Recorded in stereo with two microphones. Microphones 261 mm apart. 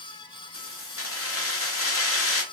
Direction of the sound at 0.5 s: 60° left (ahead or behind).